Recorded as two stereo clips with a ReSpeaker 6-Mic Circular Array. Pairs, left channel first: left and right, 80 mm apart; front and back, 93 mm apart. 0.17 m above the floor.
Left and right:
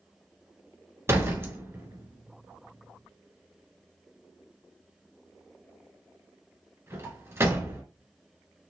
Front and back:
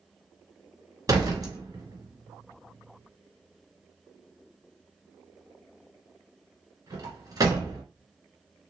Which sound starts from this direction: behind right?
A door slam, at 1.1 s.